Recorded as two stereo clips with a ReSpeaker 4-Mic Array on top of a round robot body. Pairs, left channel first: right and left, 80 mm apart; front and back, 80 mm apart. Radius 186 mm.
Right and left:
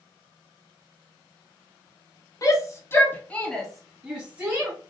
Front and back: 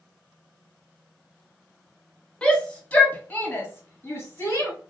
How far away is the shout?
About 1.5 m.